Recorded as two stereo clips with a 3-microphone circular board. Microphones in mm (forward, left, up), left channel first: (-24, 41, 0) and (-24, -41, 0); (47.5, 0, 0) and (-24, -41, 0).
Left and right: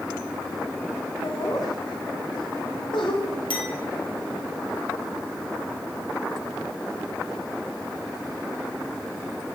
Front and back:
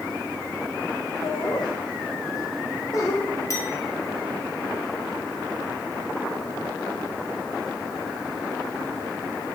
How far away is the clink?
About 4 m.